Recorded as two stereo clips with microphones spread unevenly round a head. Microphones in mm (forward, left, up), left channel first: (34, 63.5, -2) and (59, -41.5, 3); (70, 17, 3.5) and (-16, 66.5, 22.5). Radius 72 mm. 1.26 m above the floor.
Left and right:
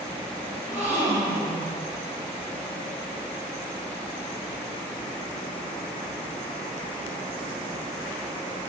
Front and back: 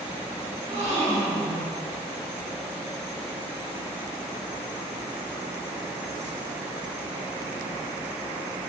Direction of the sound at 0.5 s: 150° right.